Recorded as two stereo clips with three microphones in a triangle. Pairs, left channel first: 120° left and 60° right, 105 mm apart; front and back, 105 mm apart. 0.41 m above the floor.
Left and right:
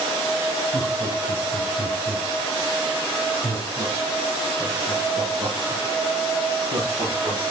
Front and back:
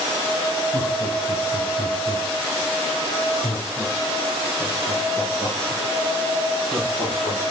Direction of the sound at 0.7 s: 35° left.